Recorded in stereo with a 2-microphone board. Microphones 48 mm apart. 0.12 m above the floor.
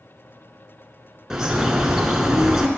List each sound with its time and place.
1.3 s a bird: 15° right (ahead or behind), 0.6 m